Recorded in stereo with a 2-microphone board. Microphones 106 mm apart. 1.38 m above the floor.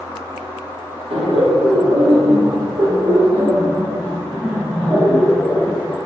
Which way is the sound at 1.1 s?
65° right (ahead or behind).